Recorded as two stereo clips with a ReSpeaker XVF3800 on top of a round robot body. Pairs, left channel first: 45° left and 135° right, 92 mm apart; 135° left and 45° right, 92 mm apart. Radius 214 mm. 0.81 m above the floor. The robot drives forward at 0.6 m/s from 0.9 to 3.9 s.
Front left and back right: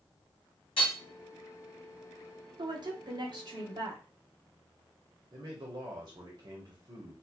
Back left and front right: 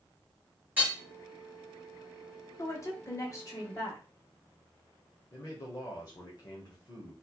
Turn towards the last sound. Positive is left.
turn(degrees=180)